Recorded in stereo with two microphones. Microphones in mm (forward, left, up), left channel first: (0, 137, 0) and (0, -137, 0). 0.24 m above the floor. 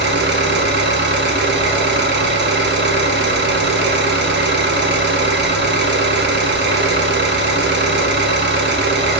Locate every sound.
0.0 s an engine running: 40° right (ahead or behind), 1.2 m